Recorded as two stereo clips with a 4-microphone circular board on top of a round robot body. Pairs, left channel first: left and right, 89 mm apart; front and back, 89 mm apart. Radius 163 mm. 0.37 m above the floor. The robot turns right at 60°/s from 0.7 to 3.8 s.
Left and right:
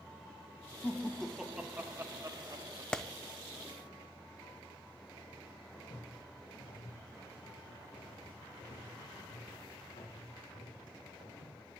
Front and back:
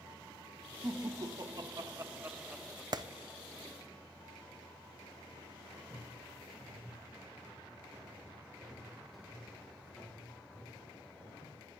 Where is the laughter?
150° left, 1.3 m; by 2.8 s 90° right, 1.3 m.